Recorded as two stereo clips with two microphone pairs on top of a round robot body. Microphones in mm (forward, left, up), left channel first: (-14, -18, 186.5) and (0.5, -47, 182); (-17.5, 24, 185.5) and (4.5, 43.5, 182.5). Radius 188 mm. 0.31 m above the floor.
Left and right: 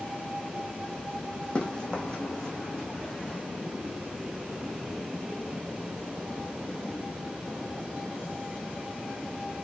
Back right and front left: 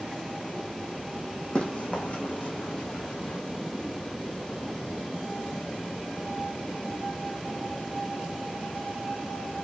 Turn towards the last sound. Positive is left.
turn(degrees=-170)